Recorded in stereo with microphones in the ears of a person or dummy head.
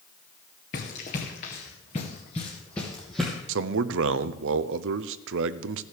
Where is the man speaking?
75° right (ahead or behind), 0.6 m.